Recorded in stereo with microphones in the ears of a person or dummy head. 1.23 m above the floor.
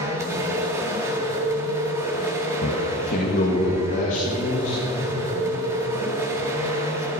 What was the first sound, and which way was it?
A machine running, 20° right (ahead or behind).